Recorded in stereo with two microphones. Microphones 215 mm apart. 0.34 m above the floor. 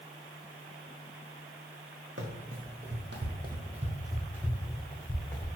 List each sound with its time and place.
2.2 s running footsteps: 60° right (ahead or behind), 0.9 m; by 5.5 s 10° left (ahead or behind), 1.2 m